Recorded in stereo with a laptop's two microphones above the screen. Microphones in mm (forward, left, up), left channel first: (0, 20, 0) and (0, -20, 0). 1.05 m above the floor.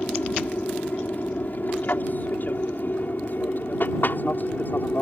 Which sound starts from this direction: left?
An aircraft, at 0.0 s.